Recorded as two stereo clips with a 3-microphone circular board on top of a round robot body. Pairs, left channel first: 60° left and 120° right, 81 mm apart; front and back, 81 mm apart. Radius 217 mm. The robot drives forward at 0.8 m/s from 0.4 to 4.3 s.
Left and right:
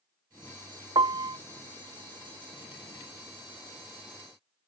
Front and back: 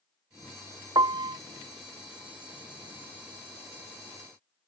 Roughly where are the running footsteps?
No running footsteps in this recording.